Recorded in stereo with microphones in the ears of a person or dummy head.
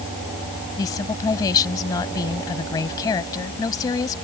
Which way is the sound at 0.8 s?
20° left (ahead or behind).